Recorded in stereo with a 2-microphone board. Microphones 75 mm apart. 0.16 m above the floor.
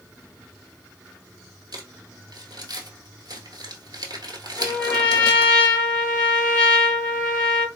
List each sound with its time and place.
1.7 s crumpling: 70° right (ahead or behind), 1.2 m
4.6 s a trumpet: 15° left (ahead or behind), 1.9 m